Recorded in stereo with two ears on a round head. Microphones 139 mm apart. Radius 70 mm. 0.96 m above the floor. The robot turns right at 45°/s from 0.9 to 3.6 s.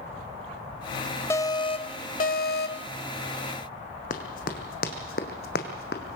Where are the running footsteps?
55° left (ahead or behind), 2.5 m; by 6.2 s 70° left (ahead or behind), 2.5 m.